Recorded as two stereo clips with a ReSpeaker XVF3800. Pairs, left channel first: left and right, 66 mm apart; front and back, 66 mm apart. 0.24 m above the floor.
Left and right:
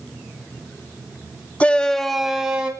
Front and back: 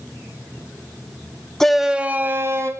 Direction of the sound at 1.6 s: 70° left.